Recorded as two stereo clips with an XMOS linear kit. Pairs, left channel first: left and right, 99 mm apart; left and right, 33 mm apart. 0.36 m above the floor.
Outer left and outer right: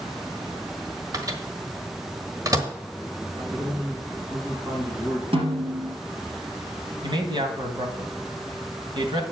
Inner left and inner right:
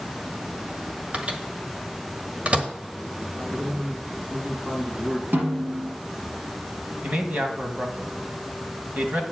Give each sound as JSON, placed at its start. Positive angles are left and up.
{"t": 1.1, "sound": "a microwave", "side_deg": -35, "distance_m": 1.2}
{"t": 3.3, "sound": "a man speaking", "side_deg": -50, "distance_m": 3.5}
{"t": 5.3, "sound": "a snare drum", "side_deg": -70, "distance_m": 3.5}
{"t": 7.0, "sound": "a man speaking", "side_deg": -55, "distance_m": 1.9}